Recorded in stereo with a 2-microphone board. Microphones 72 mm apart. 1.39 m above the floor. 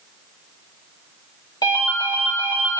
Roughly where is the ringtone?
Left.